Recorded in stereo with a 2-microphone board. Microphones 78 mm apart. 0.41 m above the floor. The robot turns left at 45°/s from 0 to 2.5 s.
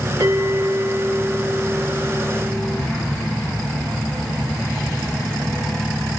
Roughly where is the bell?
Behind right.